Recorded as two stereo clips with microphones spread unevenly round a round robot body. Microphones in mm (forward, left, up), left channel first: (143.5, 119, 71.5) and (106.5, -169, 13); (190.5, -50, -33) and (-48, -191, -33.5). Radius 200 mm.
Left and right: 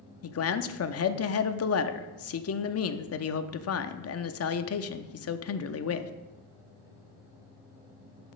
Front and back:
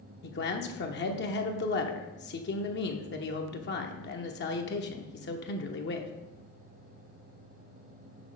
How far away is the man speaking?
About 0.7 m.